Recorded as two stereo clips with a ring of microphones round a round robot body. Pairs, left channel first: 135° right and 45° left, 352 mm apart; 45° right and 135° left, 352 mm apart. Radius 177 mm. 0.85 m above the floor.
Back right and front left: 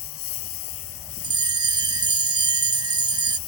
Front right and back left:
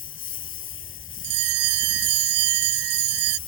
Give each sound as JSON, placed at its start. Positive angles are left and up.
{"t": 0.0, "sound": "a lawn mower", "azimuth_deg": -100}
{"t": 1.2, "sound": "a bell", "azimuth_deg": 125}